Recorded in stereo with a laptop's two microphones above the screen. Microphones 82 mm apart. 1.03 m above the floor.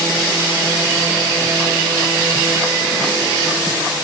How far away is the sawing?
I don't hear sawing.